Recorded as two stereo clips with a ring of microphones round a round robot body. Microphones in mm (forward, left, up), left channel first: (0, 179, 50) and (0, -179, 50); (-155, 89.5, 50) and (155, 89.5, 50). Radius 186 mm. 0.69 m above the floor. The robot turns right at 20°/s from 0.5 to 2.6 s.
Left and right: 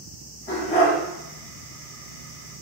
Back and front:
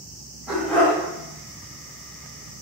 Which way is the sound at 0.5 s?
90° left.